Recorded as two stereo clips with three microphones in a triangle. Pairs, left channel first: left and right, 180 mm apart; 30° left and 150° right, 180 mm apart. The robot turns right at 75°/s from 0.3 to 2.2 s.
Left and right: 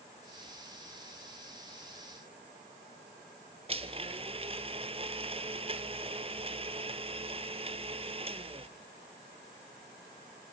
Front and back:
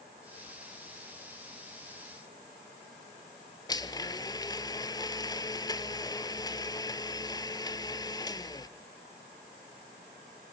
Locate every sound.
3.7 s a blender: 40° right, 0.6 m